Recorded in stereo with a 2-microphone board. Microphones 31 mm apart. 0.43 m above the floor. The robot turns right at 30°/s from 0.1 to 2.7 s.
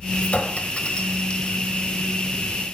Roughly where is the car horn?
I don't hear a car horn.